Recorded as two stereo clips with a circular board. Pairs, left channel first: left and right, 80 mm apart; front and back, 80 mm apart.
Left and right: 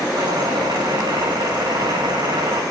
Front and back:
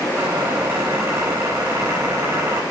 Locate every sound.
0.1 s a squeak: 125° right, 4.5 m